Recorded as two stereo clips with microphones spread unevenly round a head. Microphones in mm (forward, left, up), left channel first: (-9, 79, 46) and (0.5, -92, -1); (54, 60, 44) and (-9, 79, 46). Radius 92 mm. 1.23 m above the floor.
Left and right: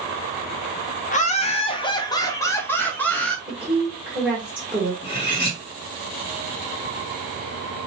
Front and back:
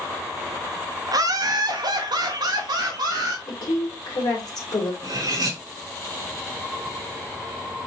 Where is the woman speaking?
10° right, 1.8 m.